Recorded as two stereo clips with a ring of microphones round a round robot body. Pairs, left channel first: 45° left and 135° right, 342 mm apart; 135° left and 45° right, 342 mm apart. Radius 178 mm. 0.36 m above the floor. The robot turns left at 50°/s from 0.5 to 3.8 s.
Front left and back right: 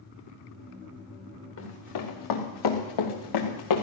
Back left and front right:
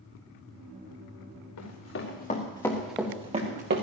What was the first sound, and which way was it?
Running footsteps, 95° left.